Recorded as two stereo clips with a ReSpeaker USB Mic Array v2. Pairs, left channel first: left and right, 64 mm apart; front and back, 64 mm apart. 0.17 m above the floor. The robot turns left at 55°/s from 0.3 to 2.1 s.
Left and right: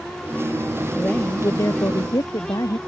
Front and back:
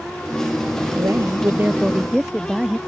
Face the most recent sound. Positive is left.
turn(degrees=95)